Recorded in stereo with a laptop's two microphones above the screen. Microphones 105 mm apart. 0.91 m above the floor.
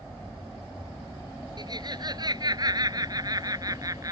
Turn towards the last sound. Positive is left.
turn(degrees=-35)  # may be behind; listen again after turning